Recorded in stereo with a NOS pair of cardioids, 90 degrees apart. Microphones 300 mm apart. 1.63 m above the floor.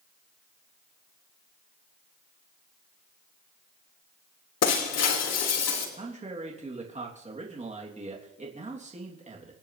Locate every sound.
4.6 s breaking glass: 60° left, 3 m
6.0 s a man speaking: 25° right, 3.5 m